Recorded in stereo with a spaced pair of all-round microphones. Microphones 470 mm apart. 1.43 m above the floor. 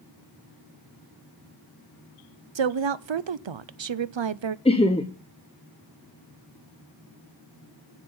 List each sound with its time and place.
2.5 s a woman speaking: 70° right (ahead or behind), 0.5 m
4.7 s laughter: 15° left (ahead or behind), 0.7 m